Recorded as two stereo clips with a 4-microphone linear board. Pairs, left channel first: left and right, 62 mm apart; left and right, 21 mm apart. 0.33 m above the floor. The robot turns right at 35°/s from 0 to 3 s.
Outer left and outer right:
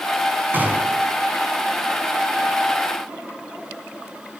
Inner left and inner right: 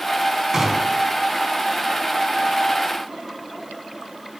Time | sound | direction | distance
0.5 | a gunshot | 30° right (ahead or behind) | 3.5 m